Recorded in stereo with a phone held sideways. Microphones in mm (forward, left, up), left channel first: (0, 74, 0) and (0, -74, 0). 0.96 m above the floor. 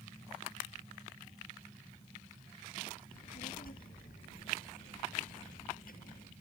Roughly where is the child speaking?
Left.